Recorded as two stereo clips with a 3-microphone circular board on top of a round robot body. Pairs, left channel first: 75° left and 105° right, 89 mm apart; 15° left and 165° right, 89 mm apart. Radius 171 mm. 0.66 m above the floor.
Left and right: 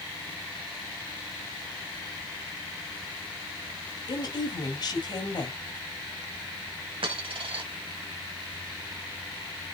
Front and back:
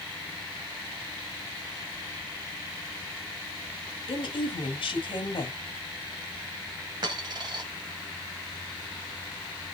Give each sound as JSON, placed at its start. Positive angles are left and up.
{"t": 4.1, "sound": "a woman speaking", "azimuth_deg": 40, "distance_m": 4.0}
{"t": 7.0, "sound": "a dropped coin", "azimuth_deg": -125, "distance_m": 1.9}